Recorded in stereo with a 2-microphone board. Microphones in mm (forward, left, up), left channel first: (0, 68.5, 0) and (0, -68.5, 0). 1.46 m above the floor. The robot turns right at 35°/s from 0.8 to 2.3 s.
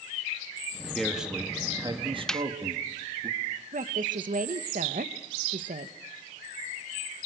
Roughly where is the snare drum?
Centre.